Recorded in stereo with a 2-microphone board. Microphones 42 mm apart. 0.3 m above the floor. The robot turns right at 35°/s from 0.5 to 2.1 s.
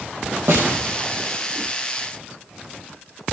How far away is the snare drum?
About 2.0 m.